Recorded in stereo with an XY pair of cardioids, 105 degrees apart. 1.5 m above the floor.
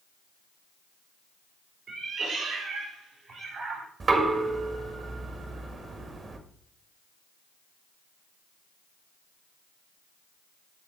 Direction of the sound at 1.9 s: 65° right.